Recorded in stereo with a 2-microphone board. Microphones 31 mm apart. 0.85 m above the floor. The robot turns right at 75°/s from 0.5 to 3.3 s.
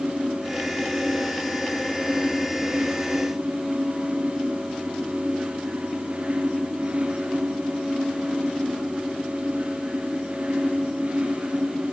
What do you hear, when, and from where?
Only background noise.